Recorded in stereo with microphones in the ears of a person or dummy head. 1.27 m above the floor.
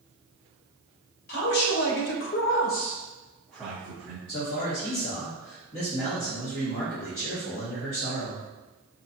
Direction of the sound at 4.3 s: 35° left (ahead or behind).